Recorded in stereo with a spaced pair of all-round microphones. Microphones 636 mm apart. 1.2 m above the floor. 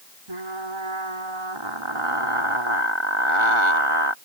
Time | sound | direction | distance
0.3 | frying | 50° right (ahead or behind) | ?